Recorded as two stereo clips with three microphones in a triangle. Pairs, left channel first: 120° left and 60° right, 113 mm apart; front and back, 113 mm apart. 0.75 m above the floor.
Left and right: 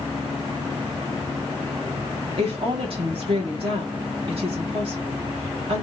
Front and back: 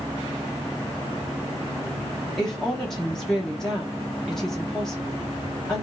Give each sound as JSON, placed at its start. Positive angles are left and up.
{"t": 2.4, "sound": "a woman speaking", "azimuth_deg": -85, "distance_m": 1.3}